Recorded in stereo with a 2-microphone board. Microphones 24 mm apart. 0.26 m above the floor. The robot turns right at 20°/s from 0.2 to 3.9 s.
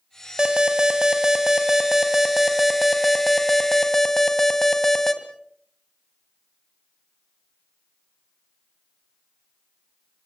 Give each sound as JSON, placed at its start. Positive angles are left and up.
{"t": 0.4, "sound": "an alarm", "azimuth_deg": -55, "distance_m": 2.0}